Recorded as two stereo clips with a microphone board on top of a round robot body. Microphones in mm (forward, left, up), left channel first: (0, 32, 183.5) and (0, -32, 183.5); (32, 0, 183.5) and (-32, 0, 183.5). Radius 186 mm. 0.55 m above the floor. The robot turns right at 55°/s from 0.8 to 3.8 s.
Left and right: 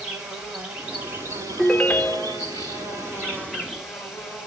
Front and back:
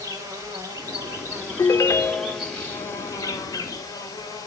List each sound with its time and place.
0.0 s an insect: 170° right, 3 m; by 4.5 s 5° right, 3 m
1.6 s a ringtone: 10° left, 0.6 m; by 2.5 s 60° left, 0.6 m